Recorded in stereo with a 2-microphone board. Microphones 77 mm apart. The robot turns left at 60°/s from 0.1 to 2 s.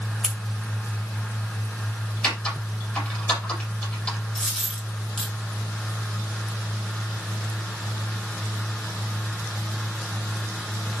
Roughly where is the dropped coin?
Centre.